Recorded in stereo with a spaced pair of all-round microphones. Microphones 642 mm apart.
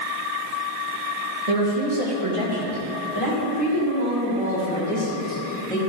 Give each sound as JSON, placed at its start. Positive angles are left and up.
{"t": 1.5, "sound": "a woman speaking", "side_deg": -65, "distance_m": 1.8}